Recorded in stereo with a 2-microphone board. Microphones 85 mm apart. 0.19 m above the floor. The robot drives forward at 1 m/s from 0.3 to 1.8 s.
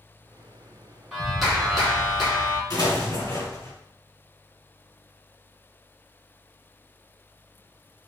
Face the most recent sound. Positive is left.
turn(degrees=45)  # may be behind; listen again after turning